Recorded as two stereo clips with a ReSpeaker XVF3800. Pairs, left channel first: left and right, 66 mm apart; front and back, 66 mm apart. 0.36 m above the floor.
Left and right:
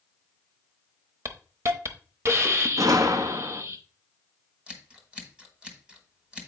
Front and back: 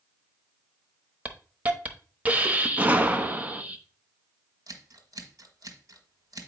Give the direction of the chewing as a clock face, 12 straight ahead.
No chewing in this recording.